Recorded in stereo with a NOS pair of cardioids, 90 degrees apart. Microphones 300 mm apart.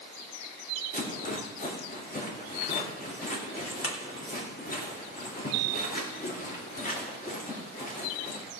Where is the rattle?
30° left, 3 m.